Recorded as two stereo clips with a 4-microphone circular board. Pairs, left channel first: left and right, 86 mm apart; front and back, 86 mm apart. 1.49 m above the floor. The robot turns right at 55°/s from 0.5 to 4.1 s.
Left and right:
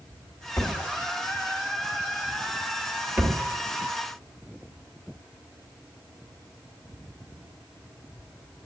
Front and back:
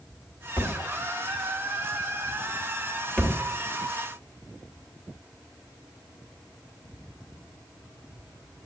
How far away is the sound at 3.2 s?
About 1.0 m.